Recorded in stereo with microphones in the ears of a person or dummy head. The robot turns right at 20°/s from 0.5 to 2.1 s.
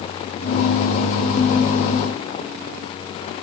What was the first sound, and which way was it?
Only background noise.